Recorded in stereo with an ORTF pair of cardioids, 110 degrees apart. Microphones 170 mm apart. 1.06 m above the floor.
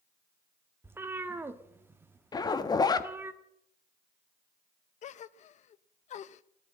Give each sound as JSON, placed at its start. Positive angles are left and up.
{"t": 0.8, "sound": "a cat meowing", "azimuth_deg": -15, "distance_m": 1.2}
{"t": 2.3, "sound": "a zipper", "azimuth_deg": 25, "distance_m": 1.2}
{"t": 5.0, "sound": "a gasp", "azimuth_deg": 50, "distance_m": 0.6}